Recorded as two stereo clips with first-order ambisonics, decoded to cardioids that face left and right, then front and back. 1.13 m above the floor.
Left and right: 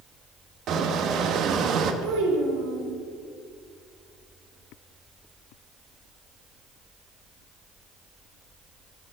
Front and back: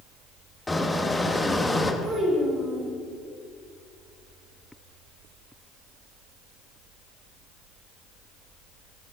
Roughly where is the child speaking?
Right.